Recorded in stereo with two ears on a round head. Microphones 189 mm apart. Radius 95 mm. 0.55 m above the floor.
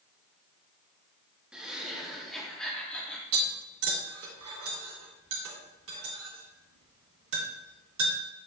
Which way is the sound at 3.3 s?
70° right (ahead or behind).